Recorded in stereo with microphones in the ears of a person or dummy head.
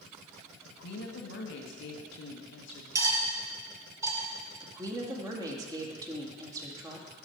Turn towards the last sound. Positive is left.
turn(degrees=-25)  # may be behind; listen again after turning